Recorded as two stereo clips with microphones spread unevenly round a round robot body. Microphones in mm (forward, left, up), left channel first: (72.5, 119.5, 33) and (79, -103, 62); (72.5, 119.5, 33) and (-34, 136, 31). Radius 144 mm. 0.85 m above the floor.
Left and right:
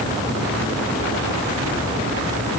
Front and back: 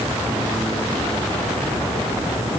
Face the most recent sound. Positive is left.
No sound to turn to.